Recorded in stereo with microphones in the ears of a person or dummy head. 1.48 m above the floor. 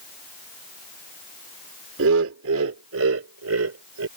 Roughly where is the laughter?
Right.